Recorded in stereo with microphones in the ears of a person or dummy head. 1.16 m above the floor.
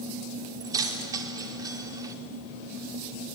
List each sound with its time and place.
0.6 s keys jangling: 20° right (ahead or behind), 2 m